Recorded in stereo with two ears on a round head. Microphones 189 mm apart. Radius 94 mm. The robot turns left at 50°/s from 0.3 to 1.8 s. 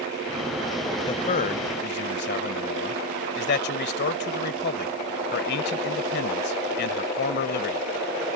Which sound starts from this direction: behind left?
A man speaking, at 1.1 s.